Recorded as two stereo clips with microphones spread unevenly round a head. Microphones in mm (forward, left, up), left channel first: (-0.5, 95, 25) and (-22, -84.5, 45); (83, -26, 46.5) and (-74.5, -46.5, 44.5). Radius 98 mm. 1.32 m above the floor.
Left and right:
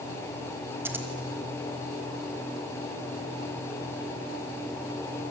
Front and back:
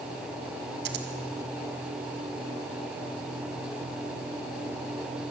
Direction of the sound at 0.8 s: 175° right.